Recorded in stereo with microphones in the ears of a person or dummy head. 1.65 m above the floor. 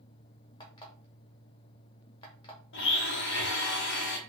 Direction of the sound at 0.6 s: 25° left (ahead or behind).